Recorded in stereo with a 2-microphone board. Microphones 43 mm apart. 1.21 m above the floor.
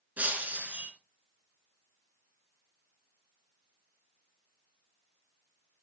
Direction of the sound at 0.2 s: 40° right (ahead or behind).